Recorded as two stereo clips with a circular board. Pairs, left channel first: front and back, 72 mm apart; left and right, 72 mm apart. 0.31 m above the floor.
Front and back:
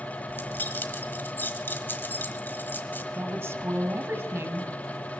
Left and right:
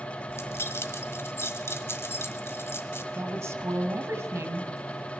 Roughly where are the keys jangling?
Ahead left.